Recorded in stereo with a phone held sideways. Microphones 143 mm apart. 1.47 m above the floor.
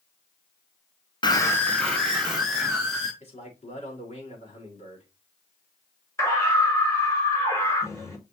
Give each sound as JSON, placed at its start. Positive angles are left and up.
{"t": 1.2, "sound": "a scream", "side_deg": 30, "distance_m": 0.9}
{"t": 3.2, "sound": "a man speaking", "side_deg": 50, "distance_m": 4.5}
{"t": 6.2, "sound": "a scream", "side_deg": 20, "distance_m": 4.5}